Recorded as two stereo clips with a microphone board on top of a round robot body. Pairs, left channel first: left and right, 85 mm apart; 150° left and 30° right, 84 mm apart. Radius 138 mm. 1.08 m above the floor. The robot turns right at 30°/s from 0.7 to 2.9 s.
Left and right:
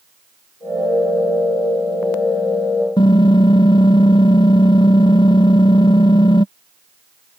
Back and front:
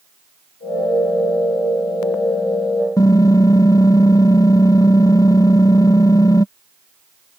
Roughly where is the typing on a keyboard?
Left.